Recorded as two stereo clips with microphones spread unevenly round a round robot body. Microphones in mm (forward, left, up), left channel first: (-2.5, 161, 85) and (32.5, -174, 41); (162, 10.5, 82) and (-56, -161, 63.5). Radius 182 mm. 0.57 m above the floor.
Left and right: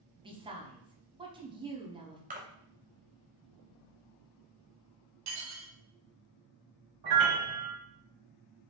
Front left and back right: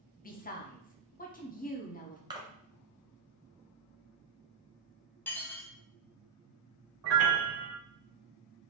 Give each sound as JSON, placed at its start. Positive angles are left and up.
{"t": 0.2, "sound": "a woman speaking", "azimuth_deg": -20, "distance_m": 0.9}
{"t": 2.3, "sound": "a splash", "azimuth_deg": -90, "distance_m": 0.9}
{"t": 5.3, "sound": "dishes clattering", "azimuth_deg": -45, "distance_m": 0.8}
{"t": 7.0, "sound": "a piano", "azimuth_deg": -115, "distance_m": 0.6}